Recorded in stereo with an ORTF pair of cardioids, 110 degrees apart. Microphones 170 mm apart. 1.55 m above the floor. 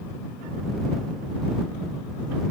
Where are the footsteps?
No footsteps in this recording.